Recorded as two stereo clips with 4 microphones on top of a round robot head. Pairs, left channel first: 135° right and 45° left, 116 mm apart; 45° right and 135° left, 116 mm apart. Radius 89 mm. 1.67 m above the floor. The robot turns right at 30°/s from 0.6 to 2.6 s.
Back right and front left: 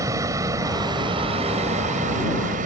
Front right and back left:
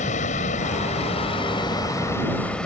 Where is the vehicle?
20° right; by 2.7 s 40° left.